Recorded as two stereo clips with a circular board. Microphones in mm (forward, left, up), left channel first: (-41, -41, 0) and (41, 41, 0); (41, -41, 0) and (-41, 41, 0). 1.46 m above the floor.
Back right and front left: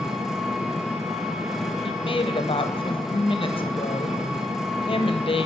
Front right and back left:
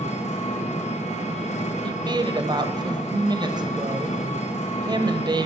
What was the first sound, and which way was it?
An engine running, 40° right.